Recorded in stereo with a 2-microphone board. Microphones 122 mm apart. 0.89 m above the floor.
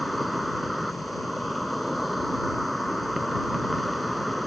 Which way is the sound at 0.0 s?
Centre (ahead or behind).